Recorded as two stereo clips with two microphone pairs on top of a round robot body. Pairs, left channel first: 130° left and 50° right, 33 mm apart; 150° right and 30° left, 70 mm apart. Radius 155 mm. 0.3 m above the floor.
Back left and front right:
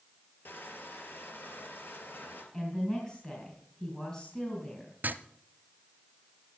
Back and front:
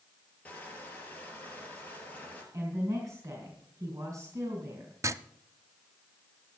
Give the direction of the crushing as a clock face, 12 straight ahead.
7 o'clock.